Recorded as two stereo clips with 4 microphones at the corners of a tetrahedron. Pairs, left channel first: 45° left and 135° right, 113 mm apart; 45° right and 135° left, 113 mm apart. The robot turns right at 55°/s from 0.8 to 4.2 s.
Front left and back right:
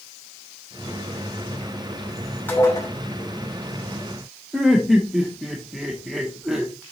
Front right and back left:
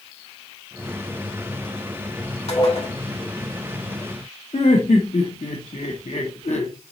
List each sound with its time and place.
2.5 s dishes clattering: 30° right, 2.5 m; by 2.9 s 5° right, 2.5 m
4.5 s laughter: 50° right, 0.9 m